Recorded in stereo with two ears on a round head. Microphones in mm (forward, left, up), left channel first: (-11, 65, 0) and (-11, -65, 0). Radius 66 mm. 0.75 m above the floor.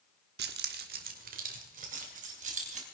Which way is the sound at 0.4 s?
80° right.